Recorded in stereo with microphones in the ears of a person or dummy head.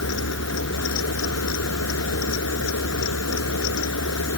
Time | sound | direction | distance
0.0 | a fan | 80° left | ?